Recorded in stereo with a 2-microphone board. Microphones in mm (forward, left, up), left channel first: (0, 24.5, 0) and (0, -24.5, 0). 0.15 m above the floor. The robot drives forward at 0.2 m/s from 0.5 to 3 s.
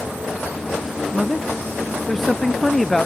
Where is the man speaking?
5° left (ahead or behind).